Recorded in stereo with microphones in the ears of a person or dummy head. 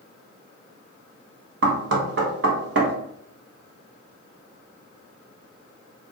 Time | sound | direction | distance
1.6 | knocking | 70° right (ahead or behind) | 0.9 m